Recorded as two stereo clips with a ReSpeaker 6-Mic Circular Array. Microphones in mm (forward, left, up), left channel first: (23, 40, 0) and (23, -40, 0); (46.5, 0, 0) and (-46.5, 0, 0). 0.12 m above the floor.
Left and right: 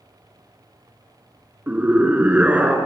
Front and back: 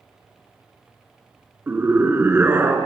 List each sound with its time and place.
1.7 s a scream: 140° right, 1.8 m